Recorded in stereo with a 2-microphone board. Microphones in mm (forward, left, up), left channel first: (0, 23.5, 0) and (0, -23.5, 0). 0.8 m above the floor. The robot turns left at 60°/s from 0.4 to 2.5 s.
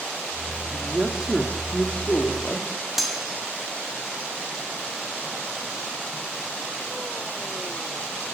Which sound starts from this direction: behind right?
A man speaking, at 0.7 s.